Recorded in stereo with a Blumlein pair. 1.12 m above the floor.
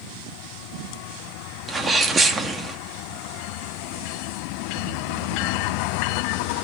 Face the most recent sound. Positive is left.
turn(degrees=-15)